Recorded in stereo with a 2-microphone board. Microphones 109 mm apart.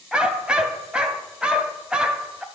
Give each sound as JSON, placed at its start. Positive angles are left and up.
{"t": 0.1, "sound": "a dog barking", "side_deg": -10, "distance_m": 0.6}